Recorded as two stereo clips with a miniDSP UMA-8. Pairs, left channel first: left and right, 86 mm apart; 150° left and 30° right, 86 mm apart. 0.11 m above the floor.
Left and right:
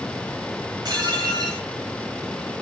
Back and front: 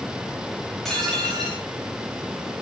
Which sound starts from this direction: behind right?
Dishes clattering, at 0.8 s.